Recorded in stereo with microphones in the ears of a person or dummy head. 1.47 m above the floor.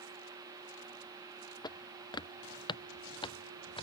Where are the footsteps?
25° left (ahead or behind); by 3.8 s 30° left (ahead or behind).